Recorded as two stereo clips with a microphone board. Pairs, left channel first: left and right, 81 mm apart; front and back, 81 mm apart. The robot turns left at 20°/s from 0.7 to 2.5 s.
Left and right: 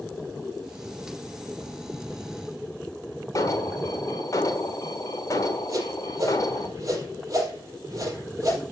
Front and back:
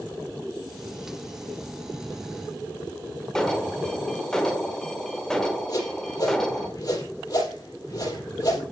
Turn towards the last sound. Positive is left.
turn(degrees=-40)